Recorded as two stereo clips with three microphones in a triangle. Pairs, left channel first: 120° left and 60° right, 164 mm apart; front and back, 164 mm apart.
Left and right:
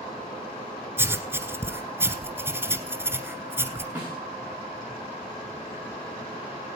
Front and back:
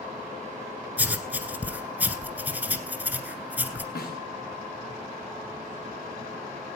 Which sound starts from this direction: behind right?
Writing, at 1.0 s.